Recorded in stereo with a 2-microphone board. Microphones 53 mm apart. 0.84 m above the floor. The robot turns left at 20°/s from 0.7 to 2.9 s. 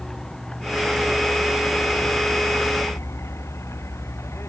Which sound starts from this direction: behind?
A vehicle, at 0.0 s.